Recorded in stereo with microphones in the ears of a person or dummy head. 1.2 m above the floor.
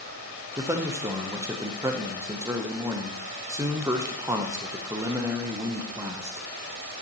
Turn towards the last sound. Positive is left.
turn(degrees=-10)  # may be behind; listen again after turning